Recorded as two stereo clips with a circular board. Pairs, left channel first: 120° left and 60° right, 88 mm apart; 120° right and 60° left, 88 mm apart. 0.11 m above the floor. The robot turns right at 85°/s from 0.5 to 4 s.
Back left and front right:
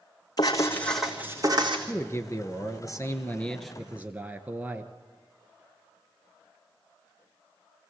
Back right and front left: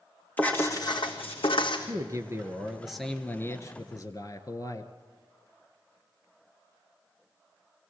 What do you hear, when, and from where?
0.4 s writing: 170° left, 2 m; by 1.8 s 85° right, 2 m
1.9 s a man speaking: 60° left, 1.3 m; by 4.9 s 120° right, 1.3 m